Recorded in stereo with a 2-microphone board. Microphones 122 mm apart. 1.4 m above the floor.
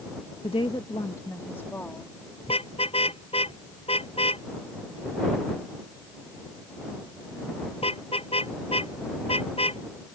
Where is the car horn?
55° left (ahead or behind).